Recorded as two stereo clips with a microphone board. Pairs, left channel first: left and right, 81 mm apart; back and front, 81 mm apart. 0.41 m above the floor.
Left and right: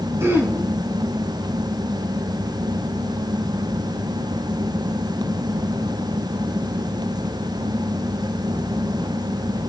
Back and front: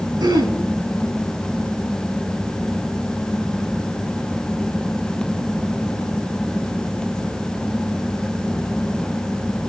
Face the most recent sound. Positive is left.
turn(degrees=-30)